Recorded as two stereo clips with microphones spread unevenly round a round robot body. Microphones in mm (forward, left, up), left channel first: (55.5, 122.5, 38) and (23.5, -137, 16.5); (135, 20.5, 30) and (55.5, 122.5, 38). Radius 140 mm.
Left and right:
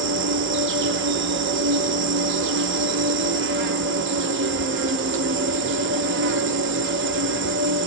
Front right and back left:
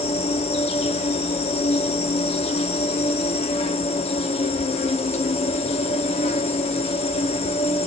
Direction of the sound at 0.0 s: 75° right.